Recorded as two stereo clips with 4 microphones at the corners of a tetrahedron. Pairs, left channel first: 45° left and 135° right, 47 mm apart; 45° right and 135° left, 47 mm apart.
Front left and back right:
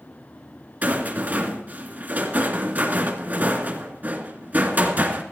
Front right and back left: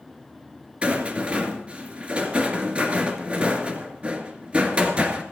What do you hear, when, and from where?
0.8 s a rattle: 170° right, 2 m